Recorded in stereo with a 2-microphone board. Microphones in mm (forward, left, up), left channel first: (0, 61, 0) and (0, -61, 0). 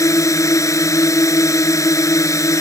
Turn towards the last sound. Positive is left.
turn(degrees=25)  # may be behind; listen again after turning